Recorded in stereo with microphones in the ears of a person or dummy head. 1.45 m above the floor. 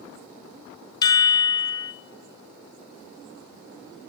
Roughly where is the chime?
Centre.